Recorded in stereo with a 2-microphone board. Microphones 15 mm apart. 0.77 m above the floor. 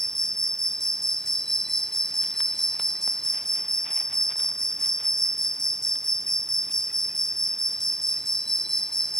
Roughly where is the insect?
Left.